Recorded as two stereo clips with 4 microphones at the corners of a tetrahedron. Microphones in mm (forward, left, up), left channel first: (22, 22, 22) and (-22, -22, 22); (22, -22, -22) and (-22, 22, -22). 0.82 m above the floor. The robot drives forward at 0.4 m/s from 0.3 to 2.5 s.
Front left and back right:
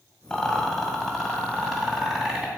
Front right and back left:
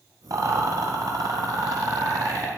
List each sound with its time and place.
0.3 s a rattle: 125° left, 1.6 m; by 2.5 s 145° left, 2 m